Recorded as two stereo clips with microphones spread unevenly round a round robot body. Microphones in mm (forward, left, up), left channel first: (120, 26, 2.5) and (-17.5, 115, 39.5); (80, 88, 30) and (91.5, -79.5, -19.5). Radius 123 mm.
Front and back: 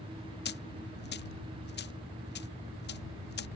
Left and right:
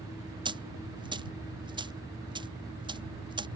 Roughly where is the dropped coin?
Ahead.